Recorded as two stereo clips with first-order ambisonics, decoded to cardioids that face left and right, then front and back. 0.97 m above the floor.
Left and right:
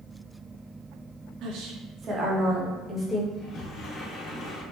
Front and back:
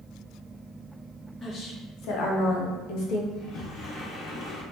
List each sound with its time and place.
1.4 s a woman speaking: 60° right, 0.9 m; by 3.2 s 5° left, 1.1 m
3.3 s a sliding door: 45° left, 0.8 m